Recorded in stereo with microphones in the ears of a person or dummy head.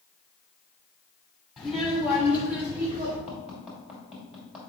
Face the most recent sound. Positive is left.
turn(degrees=0)  # may be behind; listen again after turning